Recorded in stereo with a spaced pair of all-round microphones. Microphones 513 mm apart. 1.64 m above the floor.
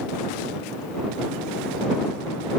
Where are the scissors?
I don't hear scissors.